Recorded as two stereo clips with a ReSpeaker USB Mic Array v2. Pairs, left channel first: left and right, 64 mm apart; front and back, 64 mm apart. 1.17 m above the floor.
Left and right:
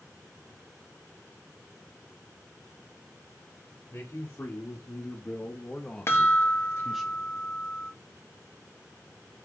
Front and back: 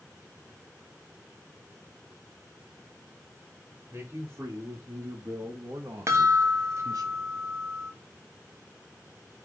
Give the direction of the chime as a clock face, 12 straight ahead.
7 o'clock.